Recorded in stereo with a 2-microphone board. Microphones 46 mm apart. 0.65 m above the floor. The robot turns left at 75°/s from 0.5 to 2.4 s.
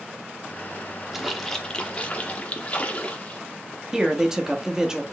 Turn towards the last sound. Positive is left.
turn(degrees=-10)  # may be behind; listen again after turning